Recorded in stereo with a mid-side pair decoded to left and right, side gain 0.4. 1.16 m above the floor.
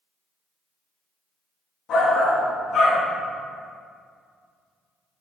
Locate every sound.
1.9 s a shout: 70° left, 2.5 m